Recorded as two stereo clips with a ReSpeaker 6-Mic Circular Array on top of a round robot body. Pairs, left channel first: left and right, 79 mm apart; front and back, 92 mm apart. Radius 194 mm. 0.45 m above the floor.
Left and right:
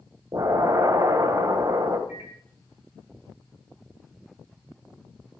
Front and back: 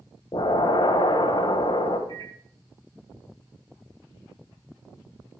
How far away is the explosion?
About 1.8 m.